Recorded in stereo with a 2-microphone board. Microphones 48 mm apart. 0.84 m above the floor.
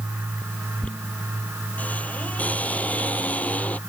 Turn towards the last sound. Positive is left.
turn(degrees=30)  # may be behind; listen again after turning